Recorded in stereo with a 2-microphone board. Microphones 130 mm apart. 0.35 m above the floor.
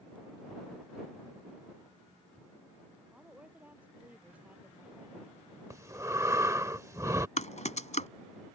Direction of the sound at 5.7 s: 25° right (ahead or behind).